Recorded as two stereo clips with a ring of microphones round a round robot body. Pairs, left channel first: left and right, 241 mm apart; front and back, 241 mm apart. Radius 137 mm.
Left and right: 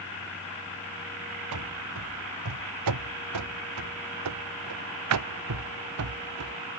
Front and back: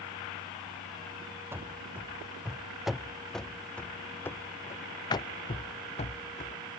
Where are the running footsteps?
100° right; by 6.6 s 65° right.